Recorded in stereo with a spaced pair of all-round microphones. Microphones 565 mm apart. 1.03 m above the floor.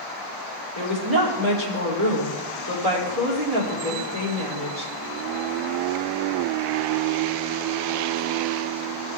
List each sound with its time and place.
0.8 s a woman speaking: 75° right (ahead or behind), 3.5 m